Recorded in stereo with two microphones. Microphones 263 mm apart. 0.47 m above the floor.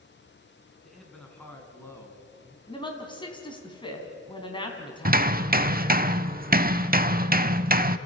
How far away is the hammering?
About 0.7 m.